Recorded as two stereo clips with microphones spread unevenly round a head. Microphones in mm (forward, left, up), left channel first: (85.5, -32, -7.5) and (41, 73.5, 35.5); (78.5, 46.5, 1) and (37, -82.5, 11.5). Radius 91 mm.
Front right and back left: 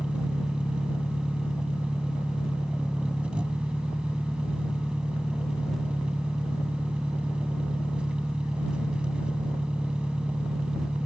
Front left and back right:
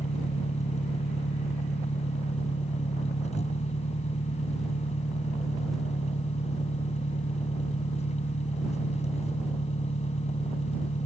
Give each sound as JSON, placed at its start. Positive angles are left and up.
{"t": 0.0, "sound": "an engine running", "azimuth_deg": 35}